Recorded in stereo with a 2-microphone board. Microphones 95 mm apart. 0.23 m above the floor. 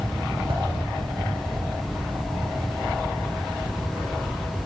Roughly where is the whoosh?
Right.